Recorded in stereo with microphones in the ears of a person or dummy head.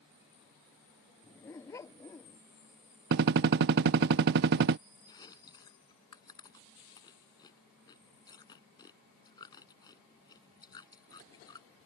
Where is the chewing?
25° left (ahead or behind).